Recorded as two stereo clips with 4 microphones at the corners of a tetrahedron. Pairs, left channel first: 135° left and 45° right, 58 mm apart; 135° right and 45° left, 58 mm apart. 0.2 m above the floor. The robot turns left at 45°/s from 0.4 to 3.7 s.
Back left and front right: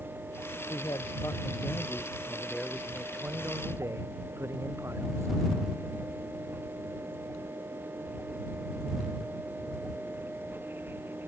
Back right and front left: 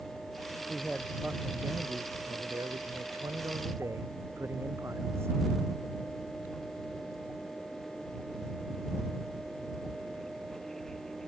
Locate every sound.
0.6 s a man speaking: 135° left; by 5.3 s straight ahead